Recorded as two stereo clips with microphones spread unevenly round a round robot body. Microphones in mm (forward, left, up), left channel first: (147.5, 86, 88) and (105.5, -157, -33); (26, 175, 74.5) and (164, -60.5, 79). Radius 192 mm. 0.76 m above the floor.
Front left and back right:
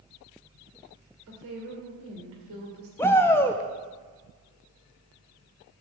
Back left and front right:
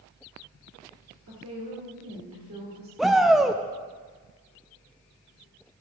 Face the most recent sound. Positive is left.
turn(degrees=-150)